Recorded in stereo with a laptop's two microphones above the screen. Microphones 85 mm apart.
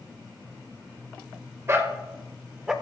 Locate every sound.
1.7 s a dog barking: 30° right (ahead or behind), 1.4 m; by 2.7 s 5° right (ahead or behind), 1.0 m